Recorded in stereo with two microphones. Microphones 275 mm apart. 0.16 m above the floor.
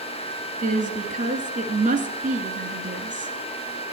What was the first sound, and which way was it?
A woman speaking, 30° right (ahead or behind).